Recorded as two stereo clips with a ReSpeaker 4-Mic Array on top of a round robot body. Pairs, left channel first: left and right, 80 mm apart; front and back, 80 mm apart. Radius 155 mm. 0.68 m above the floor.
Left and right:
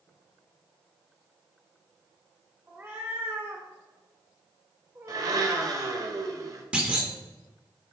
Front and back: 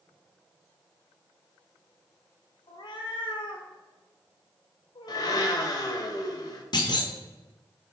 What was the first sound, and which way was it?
A cat meowing, 25° right.